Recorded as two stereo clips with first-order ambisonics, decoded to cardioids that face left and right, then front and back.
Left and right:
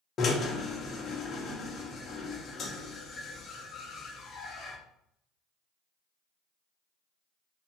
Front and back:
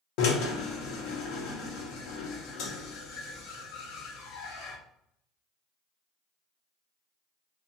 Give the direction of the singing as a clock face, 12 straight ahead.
I don't hear singing.